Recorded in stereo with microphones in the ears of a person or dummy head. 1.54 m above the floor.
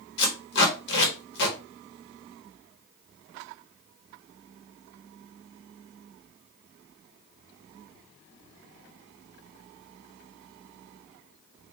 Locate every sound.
0.2 s tape being pulled: 60° left (ahead or behind), 1.5 m